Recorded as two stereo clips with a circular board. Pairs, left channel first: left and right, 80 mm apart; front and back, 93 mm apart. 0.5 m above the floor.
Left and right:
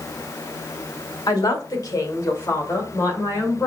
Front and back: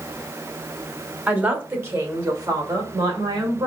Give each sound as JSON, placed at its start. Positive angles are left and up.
{"t": 1.3, "sound": "a man speaking", "azimuth_deg": 110, "distance_m": 1.4}